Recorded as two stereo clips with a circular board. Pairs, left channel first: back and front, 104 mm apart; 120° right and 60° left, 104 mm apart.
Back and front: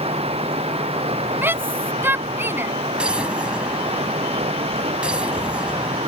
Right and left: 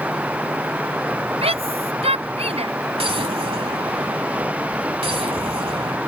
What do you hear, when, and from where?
0.0 s running water: 15° right
1.4 s a shout: 70° left
3.0 s an explosion: 80° left